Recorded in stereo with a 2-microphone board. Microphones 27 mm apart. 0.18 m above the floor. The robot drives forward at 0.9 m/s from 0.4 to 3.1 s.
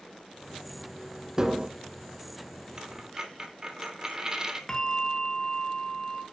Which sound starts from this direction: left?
A bell, at 4.7 s.